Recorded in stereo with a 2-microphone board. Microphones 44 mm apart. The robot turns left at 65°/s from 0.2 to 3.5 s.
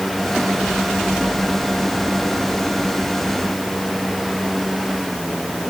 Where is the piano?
I don't hear a piano.